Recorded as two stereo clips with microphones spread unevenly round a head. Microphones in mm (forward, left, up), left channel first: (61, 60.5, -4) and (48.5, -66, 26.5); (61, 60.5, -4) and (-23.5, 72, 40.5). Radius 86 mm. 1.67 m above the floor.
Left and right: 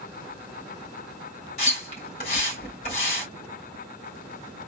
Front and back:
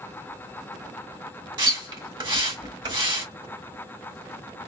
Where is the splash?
140° left, 2.5 m.